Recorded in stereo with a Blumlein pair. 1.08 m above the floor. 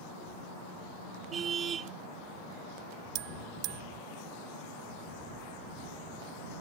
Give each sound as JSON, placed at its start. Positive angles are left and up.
{"t": 1.3, "sound": "a car horn", "azimuth_deg": -25}
{"t": 3.1, "sound": "a bell", "azimuth_deg": -40}